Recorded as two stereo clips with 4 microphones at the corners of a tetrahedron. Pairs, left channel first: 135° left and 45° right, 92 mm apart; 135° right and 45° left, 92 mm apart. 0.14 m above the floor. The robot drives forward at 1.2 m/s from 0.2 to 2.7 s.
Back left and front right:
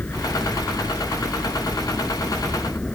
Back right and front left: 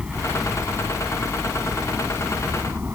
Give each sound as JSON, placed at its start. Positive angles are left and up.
{"t": 0.0, "sound": "a helicopter", "azimuth_deg": 100}